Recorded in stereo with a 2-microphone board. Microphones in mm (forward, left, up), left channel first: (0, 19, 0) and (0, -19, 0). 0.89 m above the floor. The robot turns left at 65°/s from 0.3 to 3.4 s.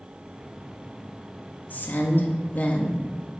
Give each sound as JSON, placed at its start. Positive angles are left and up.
{"t": 1.7, "sound": "a woman speaking", "azimuth_deg": 115, "distance_m": 1.5}